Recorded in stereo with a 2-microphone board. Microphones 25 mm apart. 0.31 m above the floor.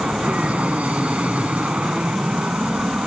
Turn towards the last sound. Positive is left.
turn(degrees=-65)  # may be behind; listen again after turning